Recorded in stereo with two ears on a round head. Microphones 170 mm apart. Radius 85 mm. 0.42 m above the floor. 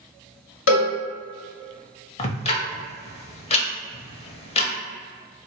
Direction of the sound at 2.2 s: 30° left (ahead or behind).